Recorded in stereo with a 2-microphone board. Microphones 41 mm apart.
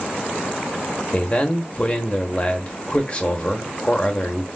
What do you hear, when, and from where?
1.1 s a man speaking: 30° left (ahead or behind), 1.1 m